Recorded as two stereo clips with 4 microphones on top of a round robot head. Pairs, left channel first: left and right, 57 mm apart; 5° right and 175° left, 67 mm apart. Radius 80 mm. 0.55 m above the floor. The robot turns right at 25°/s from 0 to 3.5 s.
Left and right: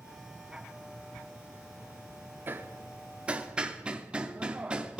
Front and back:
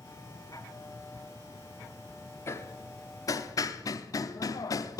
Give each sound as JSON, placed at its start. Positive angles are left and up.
{"t": 2.5, "sound": "hammering", "azimuth_deg": -45, "distance_m": 0.7}